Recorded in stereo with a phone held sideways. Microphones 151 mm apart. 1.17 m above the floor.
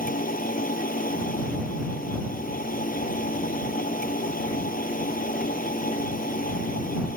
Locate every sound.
0.0 s a machine running: 70° left (ahead or behind)